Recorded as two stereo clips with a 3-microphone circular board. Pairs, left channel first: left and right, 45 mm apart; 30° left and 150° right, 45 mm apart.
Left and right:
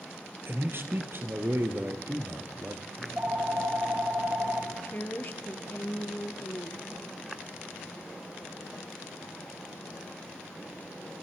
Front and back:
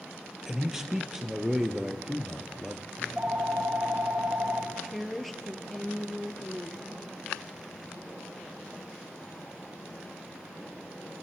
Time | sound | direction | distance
0.5 | a man speaking | 70° right | 2.5 m
3.0 | a phone ringing | 115° right | 1.1 m
4.8 | a woman speaking | 120° left | 2.5 m